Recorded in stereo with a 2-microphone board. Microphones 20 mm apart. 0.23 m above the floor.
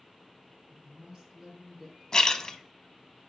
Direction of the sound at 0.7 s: 40° right (ahead or behind).